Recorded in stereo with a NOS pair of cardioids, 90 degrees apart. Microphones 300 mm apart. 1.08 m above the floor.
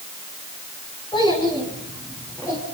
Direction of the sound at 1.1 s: 15° left.